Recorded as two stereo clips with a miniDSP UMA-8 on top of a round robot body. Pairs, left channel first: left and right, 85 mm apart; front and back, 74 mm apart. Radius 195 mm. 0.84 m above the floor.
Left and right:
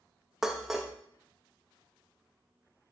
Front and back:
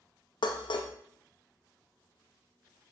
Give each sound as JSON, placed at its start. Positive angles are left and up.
{"t": 0.4, "sound": "dishes clattering", "azimuth_deg": -5, "distance_m": 0.6}